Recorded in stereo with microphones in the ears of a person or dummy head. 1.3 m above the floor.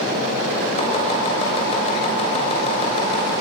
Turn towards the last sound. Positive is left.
turn(degrees=30)  # may be behind; listen again after turning